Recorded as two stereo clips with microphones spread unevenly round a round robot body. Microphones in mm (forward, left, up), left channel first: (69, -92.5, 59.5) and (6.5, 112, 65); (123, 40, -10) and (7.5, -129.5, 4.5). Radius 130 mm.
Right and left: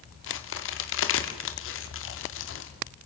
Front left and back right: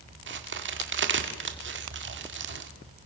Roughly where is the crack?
Right.